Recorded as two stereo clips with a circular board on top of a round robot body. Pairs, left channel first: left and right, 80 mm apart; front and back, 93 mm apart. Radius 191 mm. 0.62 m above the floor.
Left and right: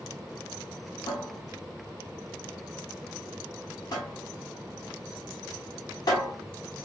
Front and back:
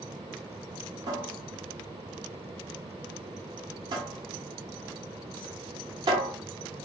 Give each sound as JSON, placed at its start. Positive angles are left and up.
{"t": 1.1, "sound": "a cupboard door", "azimuth_deg": 135, "distance_m": 0.6}